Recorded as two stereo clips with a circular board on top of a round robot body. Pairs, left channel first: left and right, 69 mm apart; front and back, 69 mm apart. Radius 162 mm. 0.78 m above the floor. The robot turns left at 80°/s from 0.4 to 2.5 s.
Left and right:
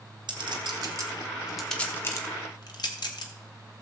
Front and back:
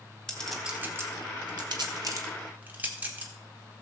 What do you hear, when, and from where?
0.3 s a clink: 80° right, 1.5 m; by 3.3 s 110° left, 1.5 m